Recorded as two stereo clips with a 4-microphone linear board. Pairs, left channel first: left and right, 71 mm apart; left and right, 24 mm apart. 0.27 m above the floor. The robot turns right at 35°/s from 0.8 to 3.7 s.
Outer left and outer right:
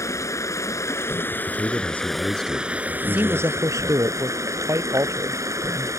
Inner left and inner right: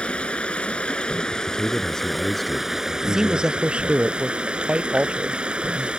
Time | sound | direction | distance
0.0 | running water | 130° left | ?
1.5 | a man speaking | 135° left | ?
3.0 | a man speaking | 25° right (ahead or behind) | ?